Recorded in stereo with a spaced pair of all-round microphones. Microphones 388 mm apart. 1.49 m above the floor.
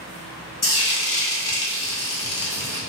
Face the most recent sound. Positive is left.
turn(degrees=70)  # may be behind; listen again after turning